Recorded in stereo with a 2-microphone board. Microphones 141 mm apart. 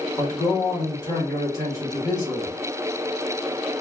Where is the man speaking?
25° left (ahead or behind), 1.4 m.